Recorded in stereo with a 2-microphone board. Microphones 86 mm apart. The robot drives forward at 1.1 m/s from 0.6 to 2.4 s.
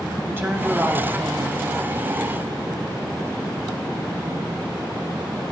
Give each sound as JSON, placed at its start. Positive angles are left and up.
{"t": 0.3, "sound": "a woman speaking", "side_deg": -30, "distance_m": 3.5}